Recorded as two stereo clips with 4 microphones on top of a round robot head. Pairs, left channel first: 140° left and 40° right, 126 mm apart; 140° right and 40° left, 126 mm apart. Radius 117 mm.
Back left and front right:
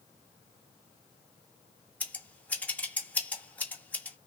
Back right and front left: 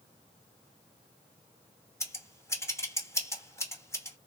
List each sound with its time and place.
2.0 s scissors: 160° right, 1.2 m